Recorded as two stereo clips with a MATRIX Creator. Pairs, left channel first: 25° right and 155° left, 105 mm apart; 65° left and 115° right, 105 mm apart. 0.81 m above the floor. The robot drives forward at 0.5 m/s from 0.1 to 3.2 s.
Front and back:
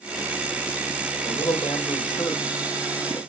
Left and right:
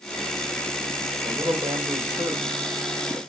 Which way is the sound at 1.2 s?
65° right.